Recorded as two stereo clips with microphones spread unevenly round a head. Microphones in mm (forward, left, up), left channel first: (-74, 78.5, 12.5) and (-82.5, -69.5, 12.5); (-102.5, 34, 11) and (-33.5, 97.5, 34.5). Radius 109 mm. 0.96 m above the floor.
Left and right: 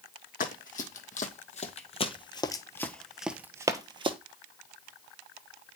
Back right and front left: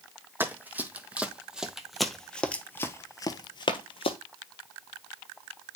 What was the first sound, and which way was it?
Running footsteps, 105° left.